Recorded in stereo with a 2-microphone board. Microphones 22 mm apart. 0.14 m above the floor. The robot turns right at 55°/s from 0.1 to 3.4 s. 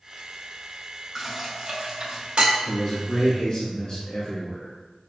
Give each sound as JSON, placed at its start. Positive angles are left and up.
{"t": 1.1, "sound": "dishes clattering", "side_deg": -15, "distance_m": 1.1}
{"t": 2.6, "sound": "a man speaking", "azimuth_deg": 45, "distance_m": 1.5}